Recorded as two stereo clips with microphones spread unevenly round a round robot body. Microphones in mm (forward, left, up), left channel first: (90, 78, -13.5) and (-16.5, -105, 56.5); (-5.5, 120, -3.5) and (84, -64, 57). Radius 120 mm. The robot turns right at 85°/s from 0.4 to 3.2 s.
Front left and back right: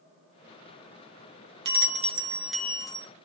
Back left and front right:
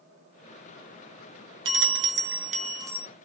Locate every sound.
1.6 s a bell: 80° right, 1.0 m; by 3.1 s 40° left, 1.0 m